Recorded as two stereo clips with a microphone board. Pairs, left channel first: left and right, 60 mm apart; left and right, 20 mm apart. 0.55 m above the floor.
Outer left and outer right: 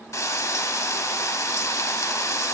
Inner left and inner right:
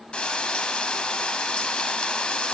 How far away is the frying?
About 0.6 m.